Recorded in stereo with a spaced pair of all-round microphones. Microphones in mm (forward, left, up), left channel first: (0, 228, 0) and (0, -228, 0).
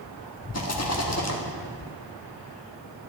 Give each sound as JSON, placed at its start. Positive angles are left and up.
{"t": 0.5, "sound": "a rattle", "side_deg": 35, "distance_m": 1.2}